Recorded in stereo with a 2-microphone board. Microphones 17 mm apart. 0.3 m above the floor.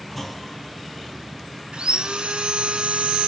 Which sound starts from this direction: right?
Sawing, at 1.7 s.